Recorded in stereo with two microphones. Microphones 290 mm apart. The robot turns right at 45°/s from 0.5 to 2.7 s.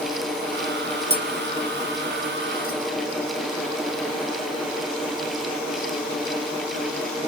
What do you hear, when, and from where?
1.1 s tapping: 20° right (ahead or behind), 0.5 m; by 2.8 s 45° left (ahead or behind), 0.5 m